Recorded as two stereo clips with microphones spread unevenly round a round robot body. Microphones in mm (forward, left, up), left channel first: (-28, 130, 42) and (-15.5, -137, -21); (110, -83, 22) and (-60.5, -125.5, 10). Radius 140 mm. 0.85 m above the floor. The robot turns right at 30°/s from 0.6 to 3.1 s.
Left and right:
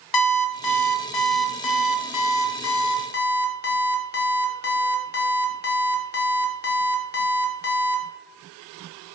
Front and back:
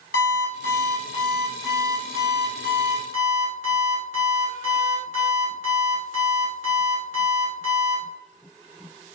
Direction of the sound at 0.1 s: 75° left.